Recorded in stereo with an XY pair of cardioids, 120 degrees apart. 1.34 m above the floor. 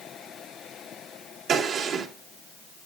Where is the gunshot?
65° right, 3 m.